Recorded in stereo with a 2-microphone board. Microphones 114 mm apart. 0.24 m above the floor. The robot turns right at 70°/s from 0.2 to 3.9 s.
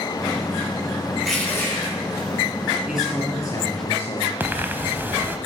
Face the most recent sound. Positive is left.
turn(degrees=-20)  # may be behind; listen again after turning